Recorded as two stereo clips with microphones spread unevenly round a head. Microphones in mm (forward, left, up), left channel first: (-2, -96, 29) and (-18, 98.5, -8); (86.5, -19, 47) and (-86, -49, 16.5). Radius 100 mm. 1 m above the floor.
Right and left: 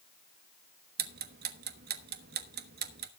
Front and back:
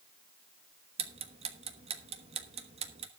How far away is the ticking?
About 1.1 m.